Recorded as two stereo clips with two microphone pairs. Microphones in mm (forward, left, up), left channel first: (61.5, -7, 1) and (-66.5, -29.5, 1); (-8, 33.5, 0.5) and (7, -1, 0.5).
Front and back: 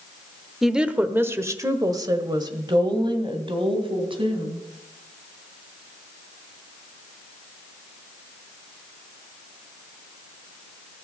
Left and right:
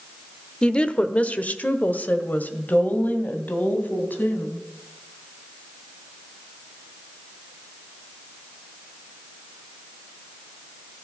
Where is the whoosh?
No whoosh in this recording.